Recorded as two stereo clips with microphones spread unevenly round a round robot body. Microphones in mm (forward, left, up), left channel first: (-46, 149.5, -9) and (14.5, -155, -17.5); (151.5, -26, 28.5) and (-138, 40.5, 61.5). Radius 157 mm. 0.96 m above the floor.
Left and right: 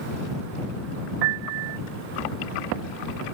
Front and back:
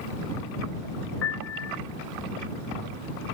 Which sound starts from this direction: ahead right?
A piano, at 1.2 s.